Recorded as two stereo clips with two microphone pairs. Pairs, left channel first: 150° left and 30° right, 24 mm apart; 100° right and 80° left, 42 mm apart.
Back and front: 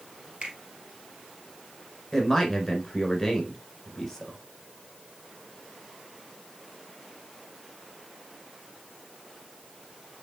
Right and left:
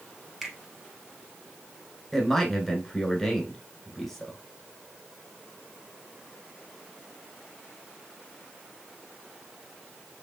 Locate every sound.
0.4 s a finger snap: straight ahead, 2 m
2.1 s a man speaking: 175° right, 1.5 m